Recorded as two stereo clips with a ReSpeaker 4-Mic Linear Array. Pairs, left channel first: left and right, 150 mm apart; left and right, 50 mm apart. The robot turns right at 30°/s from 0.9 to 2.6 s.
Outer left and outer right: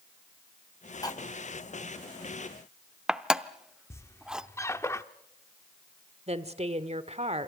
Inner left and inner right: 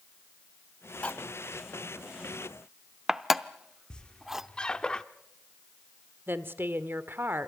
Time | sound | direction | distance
1.0 | cutlery clinking | 25° left (ahead or behind) | 0.6 m
3.9 | a squeak | 20° left (ahead or behind) | 0.8 m
6.3 | a woman speaking | 45° right (ahead or behind) | 1.4 m